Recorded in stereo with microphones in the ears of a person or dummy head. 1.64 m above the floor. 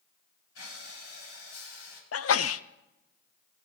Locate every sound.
0.6 s breathing: 85° left, 9 m
2.1 s a sneeze: 80° left, 0.8 m